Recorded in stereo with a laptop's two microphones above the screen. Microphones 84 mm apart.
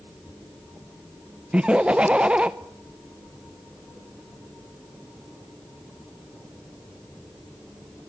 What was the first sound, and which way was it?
Laughter, 15° right (ahead or behind).